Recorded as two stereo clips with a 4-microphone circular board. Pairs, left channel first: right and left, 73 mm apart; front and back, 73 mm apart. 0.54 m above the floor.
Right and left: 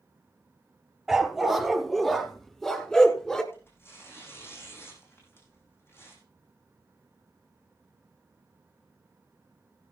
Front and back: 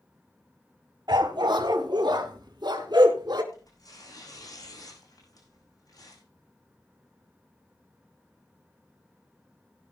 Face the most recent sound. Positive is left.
turn(degrees=-35)